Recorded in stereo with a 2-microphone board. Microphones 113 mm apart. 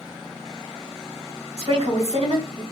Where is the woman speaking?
70° right (ahead or behind), 3 m.